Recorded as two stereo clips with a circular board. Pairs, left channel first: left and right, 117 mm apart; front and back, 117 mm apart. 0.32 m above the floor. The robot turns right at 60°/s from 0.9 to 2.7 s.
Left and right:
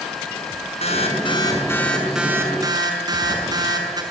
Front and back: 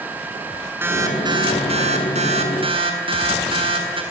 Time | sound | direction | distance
0.8 | an alarm | 110° left | 6.5 m